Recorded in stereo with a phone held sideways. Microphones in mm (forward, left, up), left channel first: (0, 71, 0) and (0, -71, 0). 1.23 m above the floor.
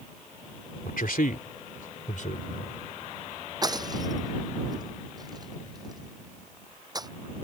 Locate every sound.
0.8 s a man speaking: 85° left; by 2.7 s 60° left (ahead or behind)
3.6 s breaking glass: 30° right (ahead or behind)